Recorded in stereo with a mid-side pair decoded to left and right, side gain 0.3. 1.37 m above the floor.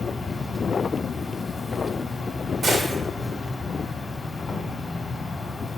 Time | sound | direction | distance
0.0 | an insect | 55° left | 1.8 m
2.6 | a gunshot | 70° right | 1.9 m